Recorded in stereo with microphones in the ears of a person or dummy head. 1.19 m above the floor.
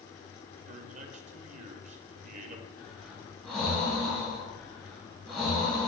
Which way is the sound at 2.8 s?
5° left (ahead or behind).